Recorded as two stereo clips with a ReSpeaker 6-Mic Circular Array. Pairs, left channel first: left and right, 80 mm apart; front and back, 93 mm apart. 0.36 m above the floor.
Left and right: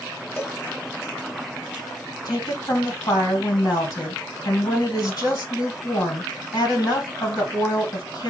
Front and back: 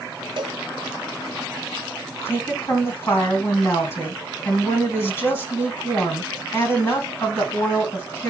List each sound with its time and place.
0.4 s a cowbell: 150° left, 1.0 m
2.2 s a woman speaking: 60° left, 3 m